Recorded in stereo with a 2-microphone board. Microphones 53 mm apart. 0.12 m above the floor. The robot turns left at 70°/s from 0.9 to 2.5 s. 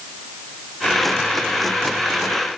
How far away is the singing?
No singing in this recording.